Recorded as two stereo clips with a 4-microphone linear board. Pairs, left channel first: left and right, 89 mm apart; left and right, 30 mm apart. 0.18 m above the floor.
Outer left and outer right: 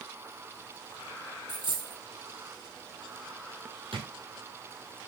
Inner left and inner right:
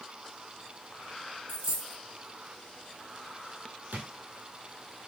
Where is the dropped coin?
60° right (ahead or behind), 2.5 m.